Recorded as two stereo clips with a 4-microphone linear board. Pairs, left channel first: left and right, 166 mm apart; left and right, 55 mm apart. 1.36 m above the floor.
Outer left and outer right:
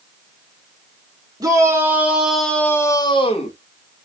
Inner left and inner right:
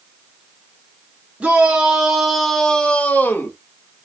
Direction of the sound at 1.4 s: 20° right (ahead or behind).